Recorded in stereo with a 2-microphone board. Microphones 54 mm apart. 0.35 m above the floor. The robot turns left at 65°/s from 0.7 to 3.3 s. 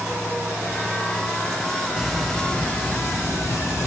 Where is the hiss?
165° right, 2.5 m; by 3.9 s 105° left, 2.5 m.